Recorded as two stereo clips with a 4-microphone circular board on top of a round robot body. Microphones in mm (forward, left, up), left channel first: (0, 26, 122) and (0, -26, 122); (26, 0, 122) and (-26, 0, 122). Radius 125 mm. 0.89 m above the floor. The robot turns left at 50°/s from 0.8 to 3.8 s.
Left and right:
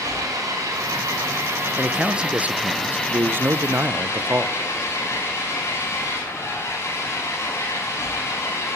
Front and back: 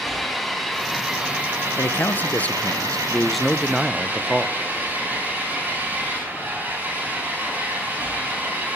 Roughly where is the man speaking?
Ahead.